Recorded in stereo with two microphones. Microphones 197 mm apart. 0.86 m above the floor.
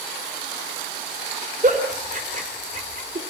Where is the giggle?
45° right (ahead or behind), 3 m.